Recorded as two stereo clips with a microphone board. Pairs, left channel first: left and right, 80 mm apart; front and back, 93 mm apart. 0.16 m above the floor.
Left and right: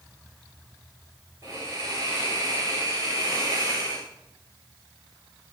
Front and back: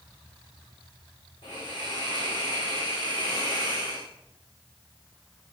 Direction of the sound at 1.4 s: 40° right.